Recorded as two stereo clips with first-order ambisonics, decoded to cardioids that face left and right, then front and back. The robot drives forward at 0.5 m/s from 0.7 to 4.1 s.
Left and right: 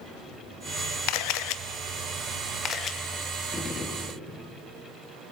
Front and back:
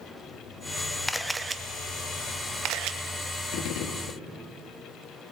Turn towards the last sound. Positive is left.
turn(degrees=20)